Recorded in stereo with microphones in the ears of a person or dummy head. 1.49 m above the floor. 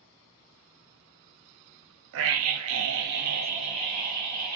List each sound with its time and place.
2.1 s a scream: 70° right (ahead or behind), 0.6 m; by 4.6 s 20° right (ahead or behind), 1.1 m